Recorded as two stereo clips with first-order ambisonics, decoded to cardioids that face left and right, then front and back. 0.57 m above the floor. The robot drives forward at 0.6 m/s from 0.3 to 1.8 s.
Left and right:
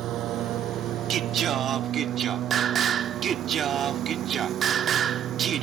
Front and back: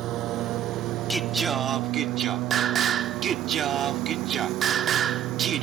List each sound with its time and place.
0.0 s a lawn mower: 135° right; by 5.6 s 140° right
1.1 s singing: 90° right; by 5.6 s 135° right